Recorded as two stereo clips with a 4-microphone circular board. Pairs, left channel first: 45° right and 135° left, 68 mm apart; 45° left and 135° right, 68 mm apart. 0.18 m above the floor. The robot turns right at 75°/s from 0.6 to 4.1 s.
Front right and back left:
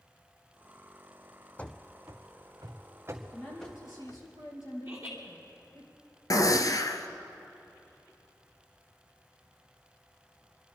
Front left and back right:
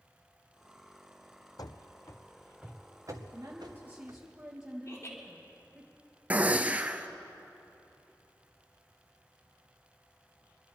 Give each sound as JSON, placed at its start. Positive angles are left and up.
{"t": 1.6, "sound": "running footsteps", "azimuth_deg": 20, "distance_m": 0.6}
{"t": 3.3, "sound": "a woman speaking", "azimuth_deg": -110, "distance_m": 4.0}
{"t": 4.8, "sound": "laughter", "azimuth_deg": 65, "distance_m": 3.0}
{"t": 6.3, "sound": "a gunshot", "azimuth_deg": -70, "distance_m": 0.9}